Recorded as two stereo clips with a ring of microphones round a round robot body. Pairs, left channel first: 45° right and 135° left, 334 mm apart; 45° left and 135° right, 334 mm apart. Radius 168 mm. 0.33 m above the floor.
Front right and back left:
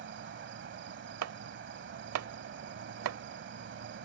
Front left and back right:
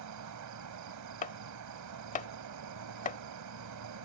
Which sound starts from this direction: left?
Chopping, at 1.2 s.